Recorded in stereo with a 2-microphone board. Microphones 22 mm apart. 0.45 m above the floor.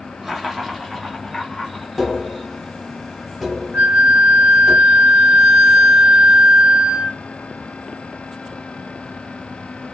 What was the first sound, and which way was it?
Laughter, 20° right (ahead or behind).